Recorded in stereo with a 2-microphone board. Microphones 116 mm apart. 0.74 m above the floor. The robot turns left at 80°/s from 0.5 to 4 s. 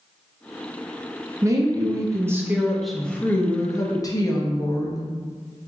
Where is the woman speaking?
25° right (ahead or behind), 0.5 m; by 5.1 s 30° left (ahead or behind), 0.5 m.